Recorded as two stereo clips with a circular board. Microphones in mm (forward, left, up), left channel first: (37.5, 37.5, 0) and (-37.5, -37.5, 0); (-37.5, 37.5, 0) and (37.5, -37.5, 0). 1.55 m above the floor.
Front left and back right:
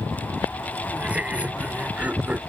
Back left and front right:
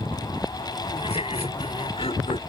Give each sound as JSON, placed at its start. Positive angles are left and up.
{"t": 0.9, "sound": "laughter", "azimuth_deg": 150}